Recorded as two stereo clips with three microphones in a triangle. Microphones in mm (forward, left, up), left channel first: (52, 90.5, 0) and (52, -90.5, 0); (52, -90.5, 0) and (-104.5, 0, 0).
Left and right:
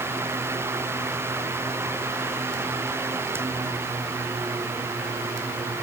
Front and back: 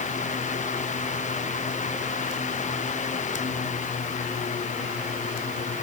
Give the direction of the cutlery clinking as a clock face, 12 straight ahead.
I don't hear cutlery clinking.